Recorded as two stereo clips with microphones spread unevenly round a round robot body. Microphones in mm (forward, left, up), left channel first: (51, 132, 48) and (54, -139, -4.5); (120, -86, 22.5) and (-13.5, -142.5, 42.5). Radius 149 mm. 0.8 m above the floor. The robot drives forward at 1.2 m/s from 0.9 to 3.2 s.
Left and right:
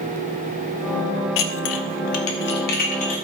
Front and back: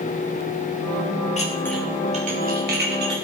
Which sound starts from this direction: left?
Dishes clattering, at 1.4 s.